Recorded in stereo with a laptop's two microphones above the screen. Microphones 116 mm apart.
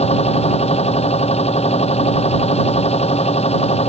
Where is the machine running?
65° left (ahead or behind).